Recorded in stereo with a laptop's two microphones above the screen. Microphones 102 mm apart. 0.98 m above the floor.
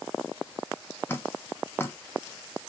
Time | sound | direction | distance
1.1 | dripping | 20° left (ahead or behind) | 0.6 m